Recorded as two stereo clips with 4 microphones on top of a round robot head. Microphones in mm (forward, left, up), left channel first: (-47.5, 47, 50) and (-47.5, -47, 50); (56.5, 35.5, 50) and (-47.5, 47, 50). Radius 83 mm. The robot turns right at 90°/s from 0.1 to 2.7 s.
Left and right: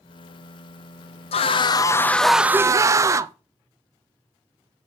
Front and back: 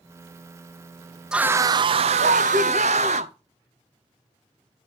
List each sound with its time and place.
1.3 s a scream: 90° left, 0.5 m; by 3.3 s 145° right, 0.5 m